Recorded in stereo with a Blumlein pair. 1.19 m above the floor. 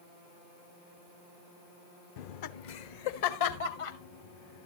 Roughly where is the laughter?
Ahead left.